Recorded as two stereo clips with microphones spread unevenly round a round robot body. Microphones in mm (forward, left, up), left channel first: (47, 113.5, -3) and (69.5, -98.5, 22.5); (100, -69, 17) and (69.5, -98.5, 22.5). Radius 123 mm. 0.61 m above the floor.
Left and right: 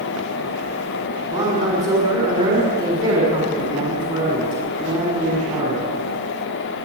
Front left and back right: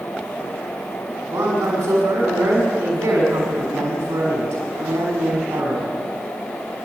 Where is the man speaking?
160° right, 5.5 m.